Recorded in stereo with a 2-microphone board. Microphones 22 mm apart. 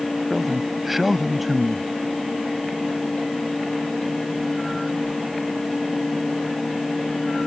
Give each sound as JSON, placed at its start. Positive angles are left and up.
{"t": 0.3, "sound": "a man speaking", "side_deg": -5}